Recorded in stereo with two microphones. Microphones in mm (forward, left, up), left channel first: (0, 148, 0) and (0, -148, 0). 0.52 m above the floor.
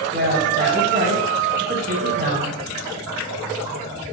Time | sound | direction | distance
0.1 | a woman speaking | 35° right (ahead or behind) | 4.5 m